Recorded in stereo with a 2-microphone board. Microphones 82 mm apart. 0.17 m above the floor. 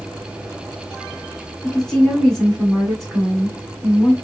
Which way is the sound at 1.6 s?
5° left (ahead or behind).